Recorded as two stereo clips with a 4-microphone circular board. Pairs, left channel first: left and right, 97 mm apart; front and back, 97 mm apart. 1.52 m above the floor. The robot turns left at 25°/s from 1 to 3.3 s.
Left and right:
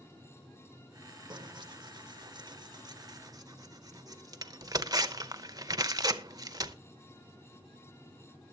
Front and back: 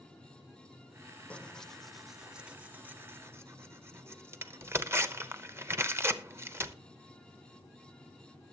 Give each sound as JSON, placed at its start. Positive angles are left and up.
{"t": 1.3, "sound": "tearing paper", "azimuth_deg": -75, "distance_m": 0.8}